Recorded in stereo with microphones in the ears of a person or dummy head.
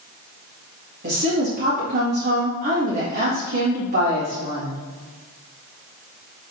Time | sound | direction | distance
1.0 | a woman speaking | 50° right (ahead or behind) | 1.9 m